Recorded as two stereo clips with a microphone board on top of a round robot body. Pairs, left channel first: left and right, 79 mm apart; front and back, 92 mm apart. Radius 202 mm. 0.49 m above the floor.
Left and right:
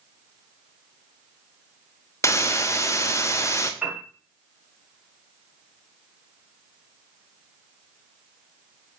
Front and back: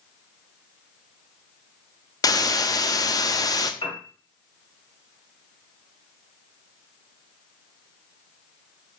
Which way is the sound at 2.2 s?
40° left.